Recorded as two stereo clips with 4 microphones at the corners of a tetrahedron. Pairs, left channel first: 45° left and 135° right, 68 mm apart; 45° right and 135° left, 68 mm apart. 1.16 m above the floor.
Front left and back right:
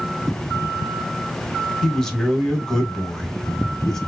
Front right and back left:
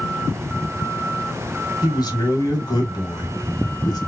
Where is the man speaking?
40° right, 1.4 m.